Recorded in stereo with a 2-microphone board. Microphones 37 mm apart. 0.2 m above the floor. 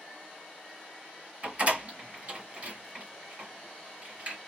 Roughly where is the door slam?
Right.